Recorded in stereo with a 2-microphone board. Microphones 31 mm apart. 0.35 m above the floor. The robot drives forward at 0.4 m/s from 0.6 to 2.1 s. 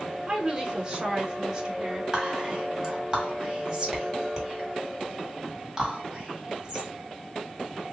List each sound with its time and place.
0.3 s a woman speaking: 20° right (ahead or behind), 1.5 m; by 2.0 s 15° right (ahead or behind), 1.8 m
2.1 s whispering: 20° right (ahead or behind), 2 m